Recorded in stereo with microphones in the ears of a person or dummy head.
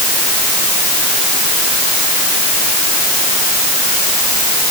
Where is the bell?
No bell in this recording.